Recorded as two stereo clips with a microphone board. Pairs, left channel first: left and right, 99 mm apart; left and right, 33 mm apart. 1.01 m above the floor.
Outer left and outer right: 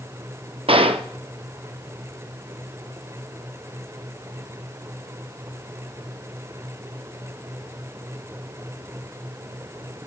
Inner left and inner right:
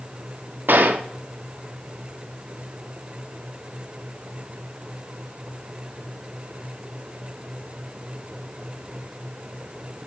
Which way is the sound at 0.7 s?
70° right (ahead or behind).